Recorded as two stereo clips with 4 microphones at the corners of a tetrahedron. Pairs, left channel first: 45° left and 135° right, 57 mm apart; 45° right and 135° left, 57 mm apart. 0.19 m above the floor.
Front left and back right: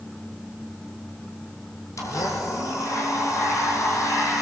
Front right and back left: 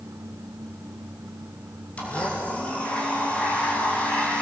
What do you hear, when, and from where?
2.0 s a blender: 25° left, 4.5 m